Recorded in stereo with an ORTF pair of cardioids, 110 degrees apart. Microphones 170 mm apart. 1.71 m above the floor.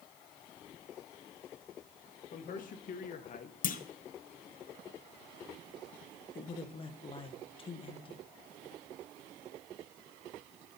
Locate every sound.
2.3 s a man speaking: 55° left, 1.8 m
3.6 s a clunk: 50° left, 0.7 m
6.3 s a man speaking: 30° left, 1.4 m